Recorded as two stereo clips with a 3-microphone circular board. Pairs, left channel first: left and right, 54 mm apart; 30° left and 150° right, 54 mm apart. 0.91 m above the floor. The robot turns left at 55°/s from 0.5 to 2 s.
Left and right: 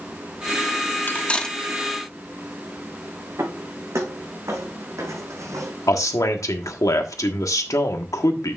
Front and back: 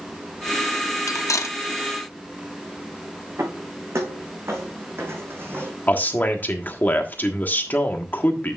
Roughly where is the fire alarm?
I don't hear a fire alarm.